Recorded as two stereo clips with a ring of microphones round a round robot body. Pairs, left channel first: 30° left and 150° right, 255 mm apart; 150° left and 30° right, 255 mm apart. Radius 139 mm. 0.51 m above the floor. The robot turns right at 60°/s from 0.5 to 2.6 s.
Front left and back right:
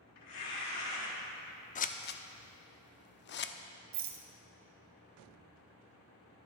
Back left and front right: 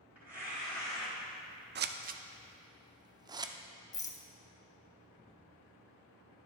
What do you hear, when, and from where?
0.1 s tearing paper: 55° left, 3.5 m; by 1.1 s 90° left, 3.5 m
1.8 s scissors: 15° right, 0.6 m; by 3.5 s 35° left, 0.6 m
3.9 s a rattle: 135° right, 0.9 m